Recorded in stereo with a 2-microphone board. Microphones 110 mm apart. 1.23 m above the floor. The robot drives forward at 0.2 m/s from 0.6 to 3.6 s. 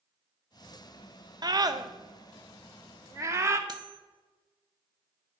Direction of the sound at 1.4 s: 40° right (ahead or behind).